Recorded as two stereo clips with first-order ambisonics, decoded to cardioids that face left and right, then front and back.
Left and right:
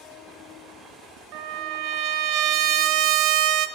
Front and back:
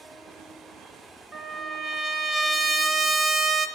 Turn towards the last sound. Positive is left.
turn(degrees=-105)